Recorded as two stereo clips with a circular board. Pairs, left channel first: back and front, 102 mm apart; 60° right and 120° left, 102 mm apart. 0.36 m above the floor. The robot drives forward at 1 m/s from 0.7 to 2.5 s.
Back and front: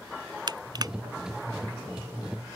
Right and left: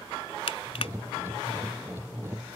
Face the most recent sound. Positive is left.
turn(degrees=-120)